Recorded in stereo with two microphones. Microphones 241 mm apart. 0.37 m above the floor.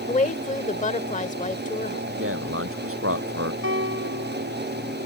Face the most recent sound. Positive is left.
turn(degrees=-55)  # may be behind; listen again after turning